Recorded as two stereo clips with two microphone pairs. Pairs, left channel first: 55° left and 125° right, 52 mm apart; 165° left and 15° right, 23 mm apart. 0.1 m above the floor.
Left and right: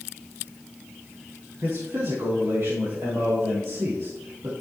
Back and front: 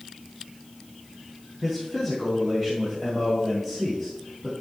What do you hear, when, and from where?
1.6 s a man speaking: 95° right, 4.5 m